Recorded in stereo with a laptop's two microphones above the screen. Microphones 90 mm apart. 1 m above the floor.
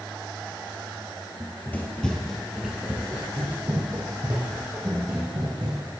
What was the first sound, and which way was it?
Running footsteps, 30° left (ahead or behind).